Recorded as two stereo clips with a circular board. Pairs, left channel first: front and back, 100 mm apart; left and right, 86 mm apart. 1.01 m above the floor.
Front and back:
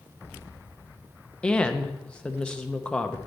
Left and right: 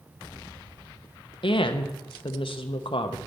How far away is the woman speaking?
About 0.7 m.